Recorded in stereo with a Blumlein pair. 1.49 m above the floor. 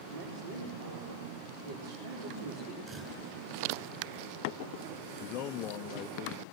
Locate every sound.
0.1 s a woman speaking: 60° right, 4.5 m
2.9 s a camera shutter: 25° right, 8 m
5.2 s a man speaking: 35° left, 0.6 m